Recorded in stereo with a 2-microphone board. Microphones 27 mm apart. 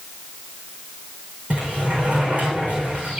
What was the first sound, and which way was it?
A sliding door, 65° right (ahead or behind).